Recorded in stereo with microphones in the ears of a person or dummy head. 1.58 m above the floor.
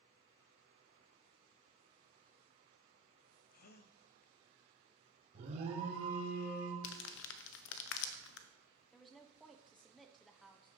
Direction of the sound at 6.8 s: 65° left (ahead or behind).